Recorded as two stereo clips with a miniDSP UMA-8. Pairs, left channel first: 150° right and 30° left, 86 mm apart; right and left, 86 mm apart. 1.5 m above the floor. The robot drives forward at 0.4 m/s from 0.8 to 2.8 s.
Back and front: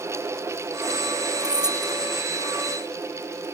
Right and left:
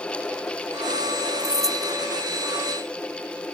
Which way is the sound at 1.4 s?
45° right.